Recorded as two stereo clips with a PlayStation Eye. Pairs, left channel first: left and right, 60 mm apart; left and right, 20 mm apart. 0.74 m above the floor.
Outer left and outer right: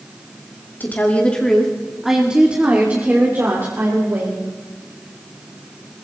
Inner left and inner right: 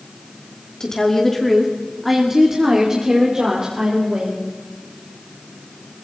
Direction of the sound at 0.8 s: 30° left (ahead or behind).